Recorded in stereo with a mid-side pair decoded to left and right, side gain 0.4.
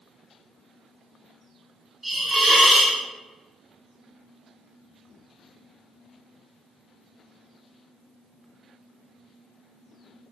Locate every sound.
2.0 s a hiss: 25° right, 1.4 m